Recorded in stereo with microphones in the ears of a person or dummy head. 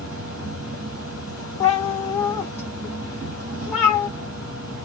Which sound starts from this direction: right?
An insect, at 0.0 s.